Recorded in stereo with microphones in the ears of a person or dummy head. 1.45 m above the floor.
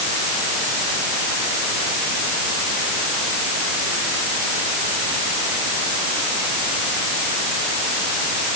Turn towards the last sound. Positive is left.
No sound to turn to.